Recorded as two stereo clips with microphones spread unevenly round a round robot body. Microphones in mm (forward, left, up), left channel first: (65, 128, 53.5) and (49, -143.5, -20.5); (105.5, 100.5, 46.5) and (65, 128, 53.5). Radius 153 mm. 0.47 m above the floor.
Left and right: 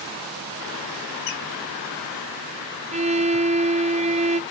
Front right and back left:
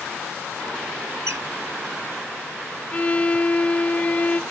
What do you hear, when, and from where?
1.3 s a squeak: 125° left, 1.9 m
2.9 s a violin: 65° right, 0.6 m